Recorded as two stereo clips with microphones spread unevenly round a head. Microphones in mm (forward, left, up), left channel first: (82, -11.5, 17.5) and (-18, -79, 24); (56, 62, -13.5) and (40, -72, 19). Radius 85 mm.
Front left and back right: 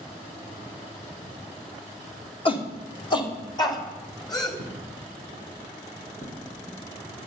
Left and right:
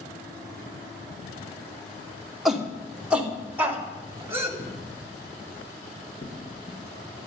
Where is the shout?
10° right, 3 m; by 4.5 s 25° right, 4 m.